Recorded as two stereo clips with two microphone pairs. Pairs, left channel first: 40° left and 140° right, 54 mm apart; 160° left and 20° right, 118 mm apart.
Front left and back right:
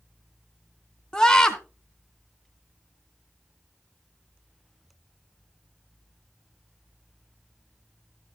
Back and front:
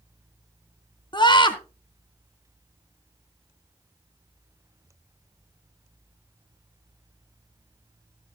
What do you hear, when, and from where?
1.1 s a scream: 115° left, 2 m